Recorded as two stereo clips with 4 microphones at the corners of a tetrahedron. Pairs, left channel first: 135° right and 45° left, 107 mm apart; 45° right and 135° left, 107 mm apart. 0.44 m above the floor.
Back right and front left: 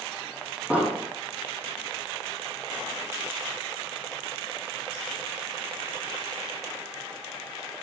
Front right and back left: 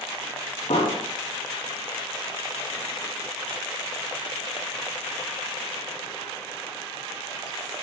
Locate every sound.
0.7 s an explosion: 35° right, 4.5 m